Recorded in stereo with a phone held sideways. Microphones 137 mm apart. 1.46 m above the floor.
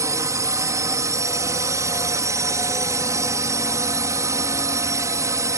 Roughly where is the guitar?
I don't hear a guitar.